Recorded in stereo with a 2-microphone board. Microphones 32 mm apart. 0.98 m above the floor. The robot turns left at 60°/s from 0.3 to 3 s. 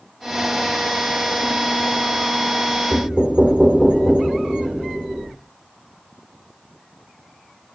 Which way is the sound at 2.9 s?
30° right (ahead or behind).